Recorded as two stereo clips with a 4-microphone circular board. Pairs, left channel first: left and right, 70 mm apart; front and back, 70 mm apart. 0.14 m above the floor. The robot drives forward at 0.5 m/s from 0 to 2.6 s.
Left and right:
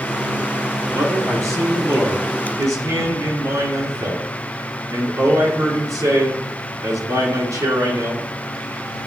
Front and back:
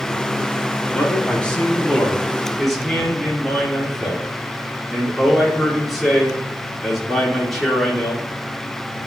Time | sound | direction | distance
0.9 | a man speaking | 65° right | 3 m